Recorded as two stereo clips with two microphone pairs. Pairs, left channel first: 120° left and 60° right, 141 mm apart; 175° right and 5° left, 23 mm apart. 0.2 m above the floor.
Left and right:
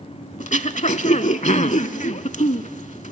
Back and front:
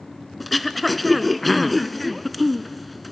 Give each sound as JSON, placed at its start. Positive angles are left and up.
{"t": 0.4, "sound": "throat clearing", "azimuth_deg": 95, "distance_m": 0.5}